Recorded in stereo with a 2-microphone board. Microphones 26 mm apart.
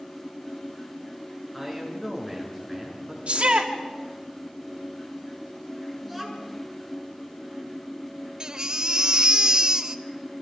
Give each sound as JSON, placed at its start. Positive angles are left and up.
{"t": 1.5, "sound": "a man speaking", "side_deg": 5, "distance_m": 7.5}
{"t": 3.3, "sound": "a shout", "side_deg": -55, "distance_m": 1.6}
{"t": 6.0, "sound": "a child speaking", "side_deg": 5, "distance_m": 7.0}
{"t": 8.4, "sound": "a baby crying", "side_deg": -30, "distance_m": 0.8}